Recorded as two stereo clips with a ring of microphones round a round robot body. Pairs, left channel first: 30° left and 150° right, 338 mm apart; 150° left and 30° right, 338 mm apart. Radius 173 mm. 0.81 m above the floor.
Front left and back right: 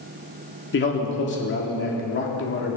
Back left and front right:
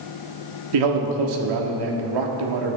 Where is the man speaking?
25° right, 1.7 m.